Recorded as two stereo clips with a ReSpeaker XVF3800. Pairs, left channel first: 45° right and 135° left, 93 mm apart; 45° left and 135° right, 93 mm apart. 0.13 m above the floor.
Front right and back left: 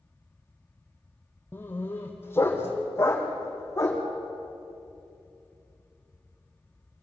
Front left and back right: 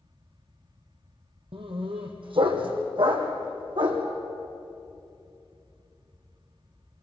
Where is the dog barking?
115° right, 2.5 m; by 4.0 s 105° right, 4 m.